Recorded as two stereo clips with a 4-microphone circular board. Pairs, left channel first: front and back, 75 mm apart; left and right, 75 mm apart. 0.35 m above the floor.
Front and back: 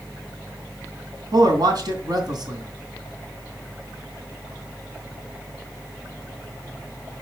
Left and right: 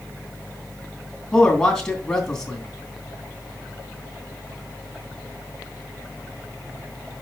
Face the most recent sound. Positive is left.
turn(degrees=170)